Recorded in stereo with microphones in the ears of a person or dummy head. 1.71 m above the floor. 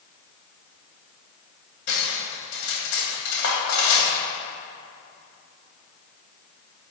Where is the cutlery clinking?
70° left (ahead or behind), 2.5 m.